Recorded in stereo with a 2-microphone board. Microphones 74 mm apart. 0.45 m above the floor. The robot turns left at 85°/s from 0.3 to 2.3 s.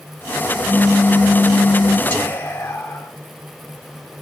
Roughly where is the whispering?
Left.